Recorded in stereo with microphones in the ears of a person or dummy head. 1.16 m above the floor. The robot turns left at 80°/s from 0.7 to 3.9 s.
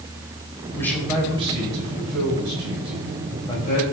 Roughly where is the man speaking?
Ahead.